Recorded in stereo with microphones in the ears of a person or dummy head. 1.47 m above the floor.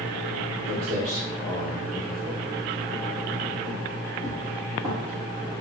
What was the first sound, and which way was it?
Footsteps, 30° right (ahead or behind).